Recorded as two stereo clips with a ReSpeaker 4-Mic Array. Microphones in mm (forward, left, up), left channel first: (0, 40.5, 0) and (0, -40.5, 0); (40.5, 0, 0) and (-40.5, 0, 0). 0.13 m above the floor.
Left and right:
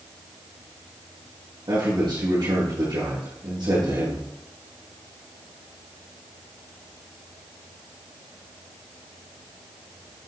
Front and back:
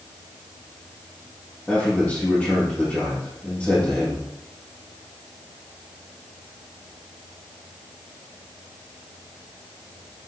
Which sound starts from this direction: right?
A man speaking, at 1.7 s.